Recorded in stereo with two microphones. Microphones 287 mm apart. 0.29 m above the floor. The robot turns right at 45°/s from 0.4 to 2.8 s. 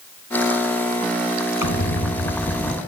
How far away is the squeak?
About 2 m.